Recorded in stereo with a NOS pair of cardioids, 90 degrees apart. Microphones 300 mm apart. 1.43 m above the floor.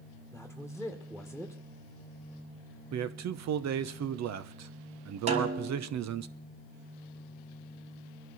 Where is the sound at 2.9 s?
60° right, 1.0 m.